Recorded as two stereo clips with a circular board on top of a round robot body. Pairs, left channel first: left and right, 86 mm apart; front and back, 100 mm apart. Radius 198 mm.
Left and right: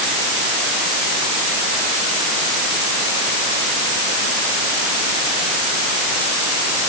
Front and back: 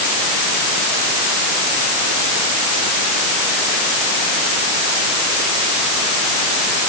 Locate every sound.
Only background noise.